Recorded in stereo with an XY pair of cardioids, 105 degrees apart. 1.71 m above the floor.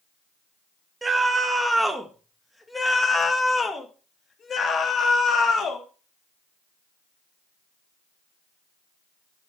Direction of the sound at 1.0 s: 20° right.